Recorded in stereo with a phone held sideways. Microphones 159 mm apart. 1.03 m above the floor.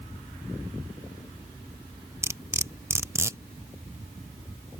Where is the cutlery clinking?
15° right (ahead or behind).